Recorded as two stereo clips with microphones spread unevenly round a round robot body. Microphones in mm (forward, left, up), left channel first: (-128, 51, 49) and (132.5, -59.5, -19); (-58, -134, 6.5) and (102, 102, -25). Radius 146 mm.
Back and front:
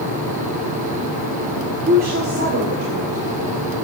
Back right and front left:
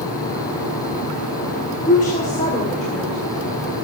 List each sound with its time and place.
1.9 s a woman speaking: 65° right, 1.7 m; by 3.6 s 55° right, 3 m